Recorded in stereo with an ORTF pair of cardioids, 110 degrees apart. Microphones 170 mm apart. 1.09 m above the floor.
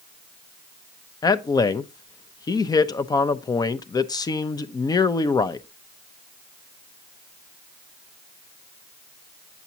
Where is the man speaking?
25° left, 0.7 m.